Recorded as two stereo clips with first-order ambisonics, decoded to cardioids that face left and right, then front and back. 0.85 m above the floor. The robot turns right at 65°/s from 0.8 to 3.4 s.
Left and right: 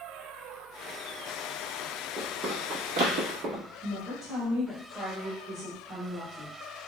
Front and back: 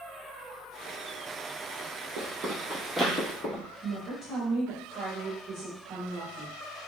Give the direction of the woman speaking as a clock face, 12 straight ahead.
5 o'clock.